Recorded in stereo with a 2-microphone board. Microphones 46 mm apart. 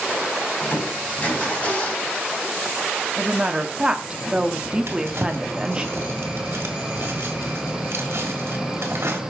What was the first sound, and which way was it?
Crushing, 30° left (ahead or behind).